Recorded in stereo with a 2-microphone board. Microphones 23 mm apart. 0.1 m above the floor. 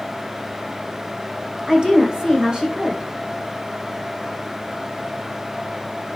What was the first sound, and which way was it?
A woman speaking, 30° right (ahead or behind).